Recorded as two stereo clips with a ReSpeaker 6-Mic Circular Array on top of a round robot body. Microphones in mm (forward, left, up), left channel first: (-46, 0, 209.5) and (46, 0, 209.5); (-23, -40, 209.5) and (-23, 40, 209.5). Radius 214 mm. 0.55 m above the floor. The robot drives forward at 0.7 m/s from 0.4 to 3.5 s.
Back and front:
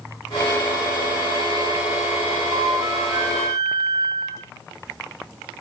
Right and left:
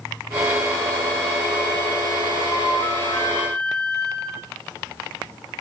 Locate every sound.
2.5 s a flute: 50° right, 5 m; by 4.5 s 55° right, 5 m